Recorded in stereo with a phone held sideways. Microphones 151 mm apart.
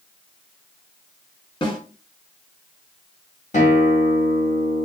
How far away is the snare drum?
About 1.5 m.